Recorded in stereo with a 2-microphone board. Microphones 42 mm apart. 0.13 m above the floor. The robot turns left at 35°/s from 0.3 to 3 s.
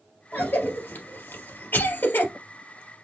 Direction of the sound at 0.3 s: 45° left (ahead or behind).